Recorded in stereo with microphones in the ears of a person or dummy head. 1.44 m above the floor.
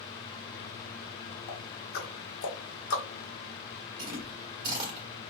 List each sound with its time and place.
1.5 s ticking: 55° left (ahead or behind), 1.7 m
4.0 s chewing: 30° right (ahead or behind), 1.3 m